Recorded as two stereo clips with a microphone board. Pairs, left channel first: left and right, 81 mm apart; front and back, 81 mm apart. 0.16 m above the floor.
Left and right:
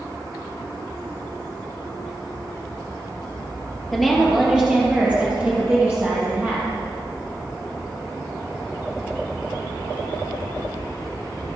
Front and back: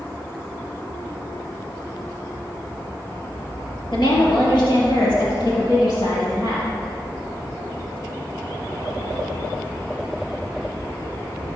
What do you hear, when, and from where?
3.9 s a woman speaking: straight ahead, 3 m; by 6.7 s 30° right, 5 m